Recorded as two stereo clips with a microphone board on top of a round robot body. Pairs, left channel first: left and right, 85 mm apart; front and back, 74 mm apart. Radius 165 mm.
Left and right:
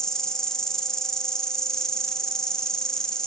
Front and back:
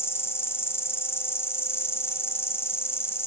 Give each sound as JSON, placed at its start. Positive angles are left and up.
{"t": 0.0, "sound": "an insect", "azimuth_deg": 15, "distance_m": 0.8}